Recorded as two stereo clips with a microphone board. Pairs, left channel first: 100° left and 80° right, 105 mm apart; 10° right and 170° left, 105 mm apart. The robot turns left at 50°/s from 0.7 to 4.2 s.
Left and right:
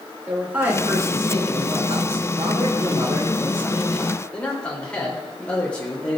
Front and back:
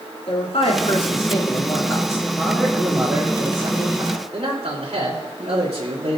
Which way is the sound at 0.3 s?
5° right.